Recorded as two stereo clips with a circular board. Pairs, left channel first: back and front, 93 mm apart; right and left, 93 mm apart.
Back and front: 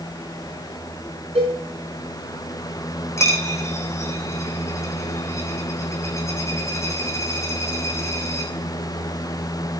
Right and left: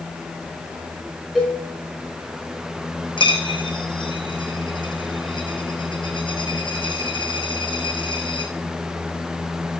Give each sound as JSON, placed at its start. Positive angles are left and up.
{"t": 1.4, "sound": "a cowbell", "azimuth_deg": 0, "distance_m": 5.0}
{"t": 3.2, "sound": "a dropped coin", "azimuth_deg": -120, "distance_m": 2.0}